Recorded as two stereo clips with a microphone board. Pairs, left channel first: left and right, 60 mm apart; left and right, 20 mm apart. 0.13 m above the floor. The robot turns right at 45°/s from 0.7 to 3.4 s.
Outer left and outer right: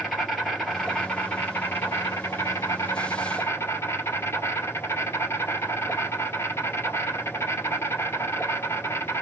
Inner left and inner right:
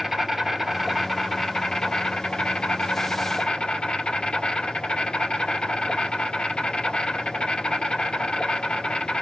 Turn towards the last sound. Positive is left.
turn(degrees=120)